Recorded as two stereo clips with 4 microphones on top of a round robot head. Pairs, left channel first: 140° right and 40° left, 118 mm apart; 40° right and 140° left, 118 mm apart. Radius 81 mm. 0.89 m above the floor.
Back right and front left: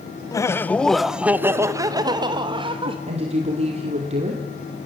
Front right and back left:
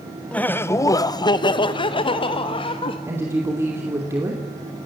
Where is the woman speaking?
75° left, 3 m.